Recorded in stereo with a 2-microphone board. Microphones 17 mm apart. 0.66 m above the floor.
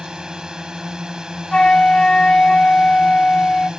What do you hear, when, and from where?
0.0 s a drone: 45° right (ahead or behind)
1.5 s a flute: 55° left (ahead or behind)